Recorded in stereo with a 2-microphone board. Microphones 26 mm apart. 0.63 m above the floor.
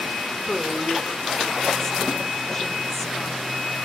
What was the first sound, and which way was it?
A woman speaking, 15° left (ahead or behind).